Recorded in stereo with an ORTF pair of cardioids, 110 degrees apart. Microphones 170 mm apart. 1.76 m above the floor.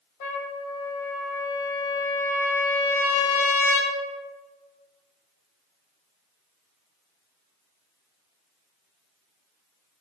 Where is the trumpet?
60° left, 0.8 m.